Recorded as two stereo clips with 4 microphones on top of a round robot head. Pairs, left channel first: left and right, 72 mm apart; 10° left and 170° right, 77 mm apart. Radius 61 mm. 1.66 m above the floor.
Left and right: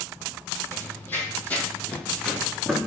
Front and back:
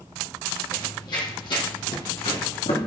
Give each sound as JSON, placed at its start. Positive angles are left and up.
{"t": 0.7, "sound": "running footsteps", "azimuth_deg": 40, "distance_m": 2.5}